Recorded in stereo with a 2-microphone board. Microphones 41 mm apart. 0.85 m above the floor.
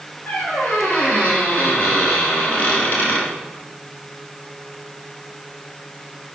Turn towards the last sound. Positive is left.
turn(degrees=45)  # may be behind; listen again after turning